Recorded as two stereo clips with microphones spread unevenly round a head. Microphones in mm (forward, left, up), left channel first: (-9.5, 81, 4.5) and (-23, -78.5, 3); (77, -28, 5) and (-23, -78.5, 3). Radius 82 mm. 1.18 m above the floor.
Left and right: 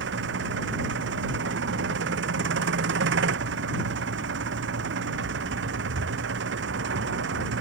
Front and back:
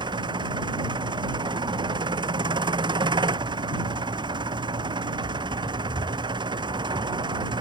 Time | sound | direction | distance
0.0 | an engine running | 105° right | ?